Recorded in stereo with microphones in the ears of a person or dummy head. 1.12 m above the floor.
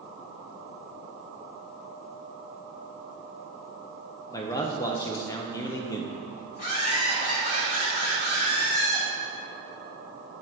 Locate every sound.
4.3 s a man speaking: 15° left (ahead or behind), 0.7 m
6.6 s laughter: 50° left (ahead or behind), 1.9 m